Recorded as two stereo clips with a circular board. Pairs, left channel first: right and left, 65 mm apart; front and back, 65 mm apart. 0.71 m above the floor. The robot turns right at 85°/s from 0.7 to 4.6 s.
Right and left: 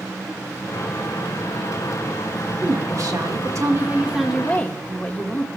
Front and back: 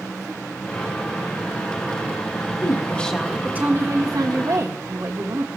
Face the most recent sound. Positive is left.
turn(degrees=-155)